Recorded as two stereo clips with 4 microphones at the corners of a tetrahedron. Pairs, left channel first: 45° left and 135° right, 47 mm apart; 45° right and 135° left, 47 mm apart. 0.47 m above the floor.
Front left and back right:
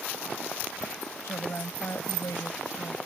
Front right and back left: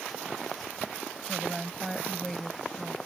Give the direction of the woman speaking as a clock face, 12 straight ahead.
11 o'clock.